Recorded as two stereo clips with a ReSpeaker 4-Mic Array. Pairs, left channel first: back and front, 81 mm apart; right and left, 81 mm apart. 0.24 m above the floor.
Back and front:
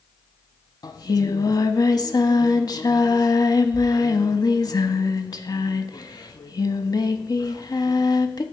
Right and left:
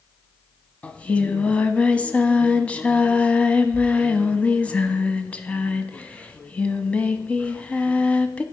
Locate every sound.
0.8 s singing: 160° right, 0.5 m